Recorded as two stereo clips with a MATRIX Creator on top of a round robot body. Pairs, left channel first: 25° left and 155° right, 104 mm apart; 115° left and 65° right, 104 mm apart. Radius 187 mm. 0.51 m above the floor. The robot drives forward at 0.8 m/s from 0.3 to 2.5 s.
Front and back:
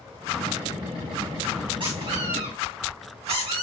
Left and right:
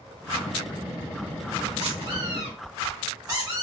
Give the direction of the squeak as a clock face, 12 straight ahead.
4 o'clock.